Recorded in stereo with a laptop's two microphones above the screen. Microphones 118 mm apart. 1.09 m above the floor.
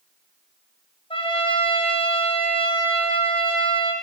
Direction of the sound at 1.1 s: 50° left (ahead or behind).